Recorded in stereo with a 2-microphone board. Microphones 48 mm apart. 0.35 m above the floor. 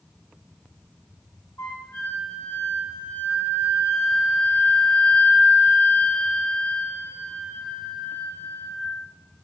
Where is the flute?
75° left (ahead or behind), 9 m.